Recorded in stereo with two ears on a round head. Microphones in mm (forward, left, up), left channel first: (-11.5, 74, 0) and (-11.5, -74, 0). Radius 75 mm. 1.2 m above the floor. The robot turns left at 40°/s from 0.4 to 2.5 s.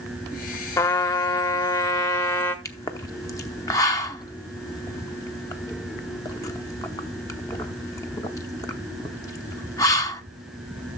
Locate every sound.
0.8 s a trumpet: 20° left (ahead or behind), 0.9 m; by 2.5 s 15° left (ahead or behind), 0.9 m
2.6 s a pop: 20° left (ahead or behind), 0.8 m